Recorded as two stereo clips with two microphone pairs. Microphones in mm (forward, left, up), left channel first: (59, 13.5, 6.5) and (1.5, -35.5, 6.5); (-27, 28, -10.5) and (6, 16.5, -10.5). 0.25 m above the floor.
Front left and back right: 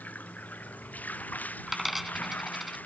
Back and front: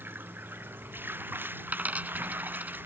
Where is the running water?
25° right.